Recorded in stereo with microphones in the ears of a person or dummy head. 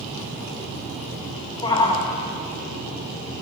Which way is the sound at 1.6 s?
25° left (ahead or behind).